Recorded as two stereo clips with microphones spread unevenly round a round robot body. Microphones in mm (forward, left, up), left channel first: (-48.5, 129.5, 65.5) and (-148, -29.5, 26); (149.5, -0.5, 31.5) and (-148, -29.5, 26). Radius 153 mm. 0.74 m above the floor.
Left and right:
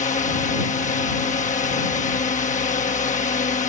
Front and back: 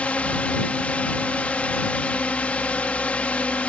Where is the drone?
90° left.